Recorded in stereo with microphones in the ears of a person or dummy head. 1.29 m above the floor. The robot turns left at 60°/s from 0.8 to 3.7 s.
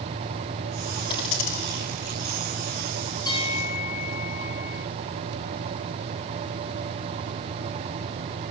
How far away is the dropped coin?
About 3 m.